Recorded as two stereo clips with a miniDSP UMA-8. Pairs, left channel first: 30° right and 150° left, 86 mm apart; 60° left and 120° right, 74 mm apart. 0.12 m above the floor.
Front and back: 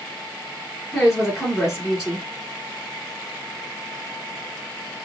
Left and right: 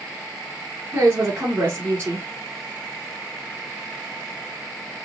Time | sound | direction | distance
0.9 | a woman speaking | 130° right | 1.4 m